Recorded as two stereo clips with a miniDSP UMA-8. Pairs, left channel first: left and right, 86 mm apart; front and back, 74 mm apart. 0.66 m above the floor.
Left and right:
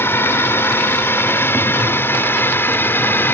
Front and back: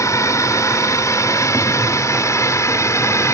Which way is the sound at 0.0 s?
30° left.